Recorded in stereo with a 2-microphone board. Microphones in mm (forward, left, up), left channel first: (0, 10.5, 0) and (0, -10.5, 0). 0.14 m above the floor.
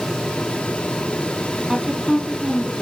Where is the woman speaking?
15° right (ahead or behind), 5 m.